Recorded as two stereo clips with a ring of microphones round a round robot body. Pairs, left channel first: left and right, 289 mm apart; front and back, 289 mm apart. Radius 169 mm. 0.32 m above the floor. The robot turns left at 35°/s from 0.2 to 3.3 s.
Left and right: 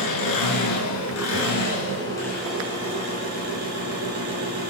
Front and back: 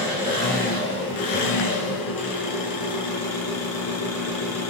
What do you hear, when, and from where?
0.0 s an engine running: 80° left, 5.5 m; by 4.7 s 30° right, 5.5 m